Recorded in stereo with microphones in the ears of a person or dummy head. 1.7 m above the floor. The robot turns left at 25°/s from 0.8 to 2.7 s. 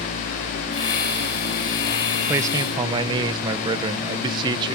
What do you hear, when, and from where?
2.3 s a man speaking: 15° right (ahead or behind); by 4.8 s 25° right (ahead or behind)